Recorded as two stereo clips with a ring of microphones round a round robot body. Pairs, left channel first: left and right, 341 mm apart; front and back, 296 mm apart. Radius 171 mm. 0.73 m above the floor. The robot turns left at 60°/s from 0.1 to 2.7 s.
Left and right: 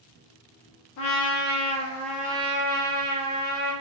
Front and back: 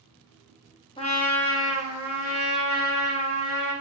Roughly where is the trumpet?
Left.